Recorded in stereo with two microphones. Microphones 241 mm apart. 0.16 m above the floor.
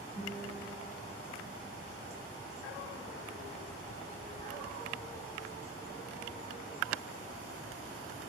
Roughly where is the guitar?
Centre.